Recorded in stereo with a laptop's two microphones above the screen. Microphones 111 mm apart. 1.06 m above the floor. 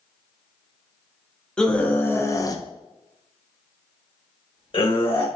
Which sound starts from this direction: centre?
A scream, at 1.6 s.